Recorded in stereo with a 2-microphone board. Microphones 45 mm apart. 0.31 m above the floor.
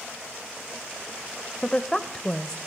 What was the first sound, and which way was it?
A woman speaking, 10° left (ahead or behind).